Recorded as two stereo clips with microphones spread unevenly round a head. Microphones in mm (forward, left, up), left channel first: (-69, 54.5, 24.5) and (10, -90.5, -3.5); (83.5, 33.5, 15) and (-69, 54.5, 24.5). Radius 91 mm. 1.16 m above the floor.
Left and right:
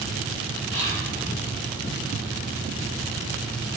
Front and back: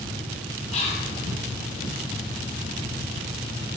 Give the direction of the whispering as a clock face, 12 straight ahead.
11 o'clock.